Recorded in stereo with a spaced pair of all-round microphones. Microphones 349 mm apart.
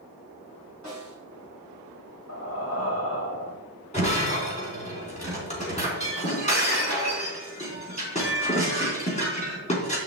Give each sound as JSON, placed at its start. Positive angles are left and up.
{"t": 0.8, "sound": "a snare drum", "side_deg": 50, "distance_m": 4.0}
{"t": 2.3, "sound": "breathing", "side_deg": 45, "distance_m": 1.3}
{"t": 3.9, "sound": "breaking glass", "side_deg": 20, "distance_m": 3.0}